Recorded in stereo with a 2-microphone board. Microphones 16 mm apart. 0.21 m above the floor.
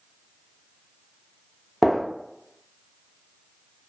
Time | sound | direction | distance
1.8 | a gunshot | centre (ahead or behind) | 0.5 m